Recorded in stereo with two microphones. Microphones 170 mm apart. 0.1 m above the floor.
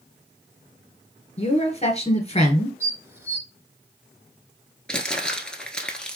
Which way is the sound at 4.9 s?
5° left (ahead or behind).